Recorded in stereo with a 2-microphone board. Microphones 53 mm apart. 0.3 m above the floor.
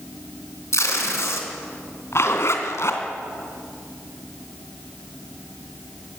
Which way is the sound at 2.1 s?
55° left (ahead or behind).